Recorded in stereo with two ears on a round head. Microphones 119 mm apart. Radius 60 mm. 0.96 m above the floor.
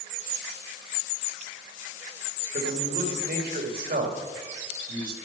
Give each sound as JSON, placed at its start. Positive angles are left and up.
{"t": 2.5, "sound": "a man speaking", "side_deg": -75, "distance_m": 2.0}